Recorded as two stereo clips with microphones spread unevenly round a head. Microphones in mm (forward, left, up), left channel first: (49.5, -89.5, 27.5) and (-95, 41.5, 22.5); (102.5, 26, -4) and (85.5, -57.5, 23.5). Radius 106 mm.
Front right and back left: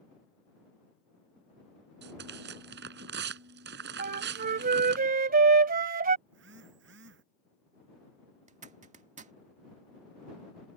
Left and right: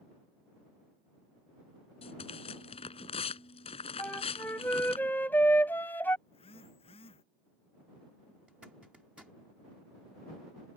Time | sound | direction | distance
2.0 | tearing paper | 95° left | ?
4.0 | a flute | 170° left | ?
6.3 | a phone buzzing | 95° left | ?
8.5 | a zipper | 170° right | ?